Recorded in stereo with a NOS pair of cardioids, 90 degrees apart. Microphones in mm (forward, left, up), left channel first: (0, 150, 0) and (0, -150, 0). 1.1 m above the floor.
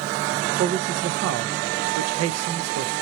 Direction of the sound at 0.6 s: 55° right.